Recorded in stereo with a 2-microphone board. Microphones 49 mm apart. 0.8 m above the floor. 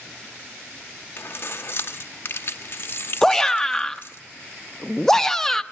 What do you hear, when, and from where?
1.2 s keys jangling: 50° left (ahead or behind), 1.0 m
3.2 s a shout: 10° left (ahead or behind), 0.7 m